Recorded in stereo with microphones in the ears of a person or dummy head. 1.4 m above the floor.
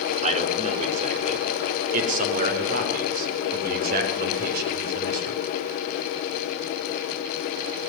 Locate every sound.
0.2 s a man speaking: 40° right (ahead or behind), 3.5 m; by 5.4 s 60° right (ahead or behind), 6.5 m